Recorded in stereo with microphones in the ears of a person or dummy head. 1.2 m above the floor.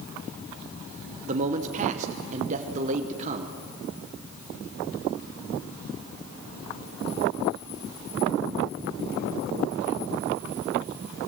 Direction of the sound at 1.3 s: 35° right (ahead or behind).